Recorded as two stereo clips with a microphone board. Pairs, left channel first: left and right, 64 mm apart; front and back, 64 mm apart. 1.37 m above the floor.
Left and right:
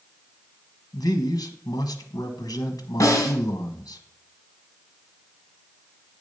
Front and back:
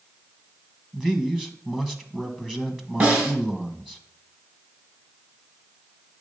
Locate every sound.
0.9 s a man speaking: 100° left, 1.1 m
3.0 s a snare drum: 120° left, 2.5 m